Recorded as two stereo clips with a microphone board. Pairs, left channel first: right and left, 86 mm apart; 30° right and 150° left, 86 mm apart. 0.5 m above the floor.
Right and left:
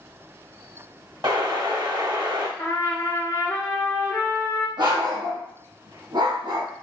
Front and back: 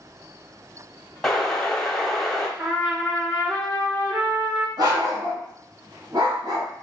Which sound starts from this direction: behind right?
A trumpet, at 2.6 s.